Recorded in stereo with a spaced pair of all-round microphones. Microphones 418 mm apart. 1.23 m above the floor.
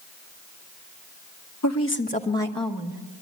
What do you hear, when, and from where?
1.6 s a woman speaking: 40° left (ahead or behind), 1.1 m; by 3.0 s 10° right (ahead or behind), 1.7 m